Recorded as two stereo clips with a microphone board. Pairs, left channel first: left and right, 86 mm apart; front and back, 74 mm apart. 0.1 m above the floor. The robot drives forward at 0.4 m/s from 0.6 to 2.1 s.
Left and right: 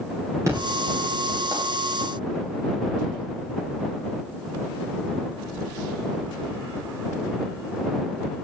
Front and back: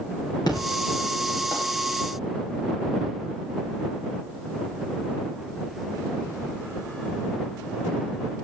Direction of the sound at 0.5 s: 35° right.